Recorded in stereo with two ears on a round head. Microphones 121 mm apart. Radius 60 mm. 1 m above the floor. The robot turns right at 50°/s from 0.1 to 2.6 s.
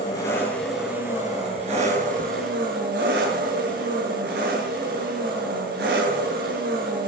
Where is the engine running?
150° left, 8 m; by 7.1 s 85° right, 8 m.